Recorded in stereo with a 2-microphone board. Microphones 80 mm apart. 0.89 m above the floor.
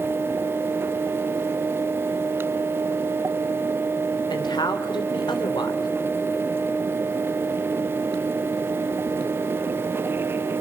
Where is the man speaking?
70° left (ahead or behind), 3.5 m.